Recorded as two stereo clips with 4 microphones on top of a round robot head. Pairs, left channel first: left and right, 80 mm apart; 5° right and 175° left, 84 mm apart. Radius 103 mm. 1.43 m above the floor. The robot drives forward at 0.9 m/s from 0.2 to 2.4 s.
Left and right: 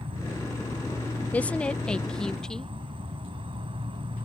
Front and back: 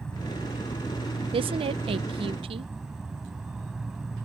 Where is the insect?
85° right; by 4.2 s 100° right.